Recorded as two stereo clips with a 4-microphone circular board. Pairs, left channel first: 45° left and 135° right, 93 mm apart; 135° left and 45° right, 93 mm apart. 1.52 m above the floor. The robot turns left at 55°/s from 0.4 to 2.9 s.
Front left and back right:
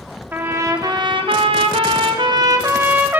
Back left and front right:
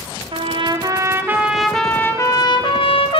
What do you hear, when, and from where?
0.3 s a trumpet: 65° right, 1.2 m; by 3.2 s 155° left, 1.2 m